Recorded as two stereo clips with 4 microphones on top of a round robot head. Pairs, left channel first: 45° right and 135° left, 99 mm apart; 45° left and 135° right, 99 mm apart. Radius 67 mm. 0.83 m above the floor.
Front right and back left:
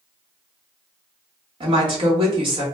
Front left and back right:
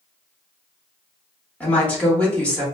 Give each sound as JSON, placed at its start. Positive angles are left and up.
{"t": 1.6, "sound": "a woman speaking", "azimuth_deg": 120, "distance_m": 1.6}